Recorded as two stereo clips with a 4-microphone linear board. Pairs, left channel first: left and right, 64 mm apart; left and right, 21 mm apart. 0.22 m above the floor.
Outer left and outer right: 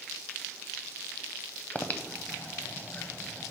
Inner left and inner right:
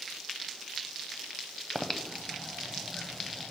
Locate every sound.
1.8 s breathing: 25° left (ahead or behind), 0.6 m